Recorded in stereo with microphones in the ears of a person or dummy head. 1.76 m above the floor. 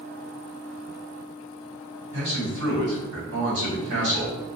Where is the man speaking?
75° right (ahead or behind), 1.6 m.